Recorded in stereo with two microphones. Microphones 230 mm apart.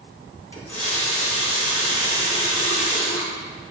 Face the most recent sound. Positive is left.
turn(degrees=75)  # may be behind; listen again after turning